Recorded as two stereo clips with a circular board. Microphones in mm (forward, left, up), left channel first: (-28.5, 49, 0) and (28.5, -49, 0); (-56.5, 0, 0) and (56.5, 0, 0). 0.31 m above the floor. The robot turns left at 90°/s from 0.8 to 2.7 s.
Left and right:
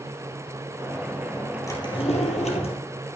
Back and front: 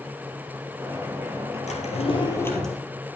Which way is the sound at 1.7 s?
Straight behind.